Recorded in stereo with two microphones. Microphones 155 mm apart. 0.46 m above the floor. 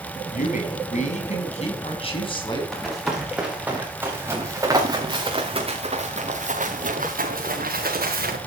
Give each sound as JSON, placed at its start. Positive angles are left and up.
{"t": 0.3, "sound": "a man speaking", "side_deg": 60, "distance_m": 5.0}
{"t": 2.7, "sound": "running footsteps", "side_deg": 0, "distance_m": 5.5}